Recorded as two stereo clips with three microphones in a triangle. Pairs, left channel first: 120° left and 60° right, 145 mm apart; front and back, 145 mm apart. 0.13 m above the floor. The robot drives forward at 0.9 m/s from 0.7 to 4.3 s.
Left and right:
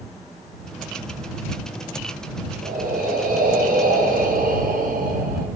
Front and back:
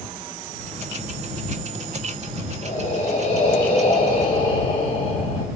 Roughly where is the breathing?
Ahead right.